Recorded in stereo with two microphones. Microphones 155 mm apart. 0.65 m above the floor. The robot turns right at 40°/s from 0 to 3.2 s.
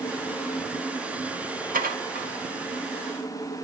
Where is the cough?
No cough in this recording.